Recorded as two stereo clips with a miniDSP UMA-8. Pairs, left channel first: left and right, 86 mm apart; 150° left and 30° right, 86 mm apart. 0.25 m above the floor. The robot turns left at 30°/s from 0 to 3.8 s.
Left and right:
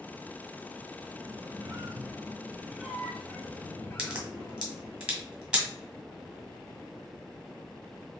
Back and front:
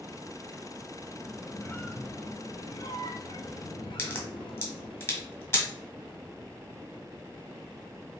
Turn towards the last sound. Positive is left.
turn(degrees=-165)